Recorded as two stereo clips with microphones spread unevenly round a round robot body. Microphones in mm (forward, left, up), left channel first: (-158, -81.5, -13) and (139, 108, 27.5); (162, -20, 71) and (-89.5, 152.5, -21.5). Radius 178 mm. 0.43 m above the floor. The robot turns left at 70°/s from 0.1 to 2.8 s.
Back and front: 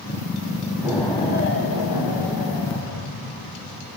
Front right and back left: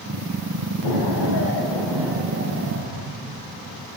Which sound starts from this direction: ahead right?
An explosion, at 0.8 s.